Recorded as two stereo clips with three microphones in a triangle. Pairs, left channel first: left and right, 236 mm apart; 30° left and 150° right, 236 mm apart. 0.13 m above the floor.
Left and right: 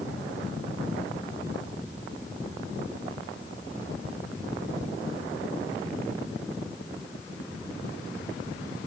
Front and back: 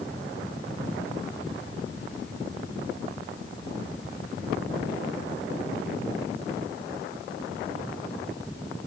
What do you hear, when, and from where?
Only background noise.